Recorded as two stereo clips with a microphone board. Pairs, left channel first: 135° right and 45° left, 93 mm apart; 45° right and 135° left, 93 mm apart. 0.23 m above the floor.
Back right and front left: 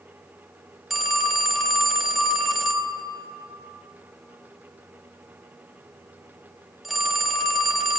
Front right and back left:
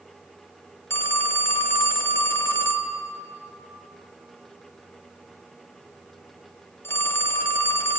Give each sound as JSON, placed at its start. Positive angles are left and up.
{"t": 0.9, "sound": "a phone ringing", "azimuth_deg": -40, "distance_m": 0.8}